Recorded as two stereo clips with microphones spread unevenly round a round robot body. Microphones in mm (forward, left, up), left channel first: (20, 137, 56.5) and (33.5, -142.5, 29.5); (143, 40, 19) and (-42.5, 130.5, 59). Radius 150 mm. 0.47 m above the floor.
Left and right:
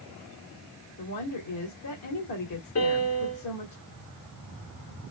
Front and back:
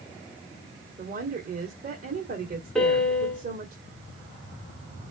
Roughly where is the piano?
Ahead left.